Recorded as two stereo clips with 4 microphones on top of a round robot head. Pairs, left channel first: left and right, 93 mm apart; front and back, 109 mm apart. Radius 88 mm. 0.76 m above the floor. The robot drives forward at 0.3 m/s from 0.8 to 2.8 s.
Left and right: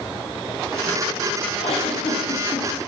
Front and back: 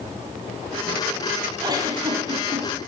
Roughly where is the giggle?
Behind left.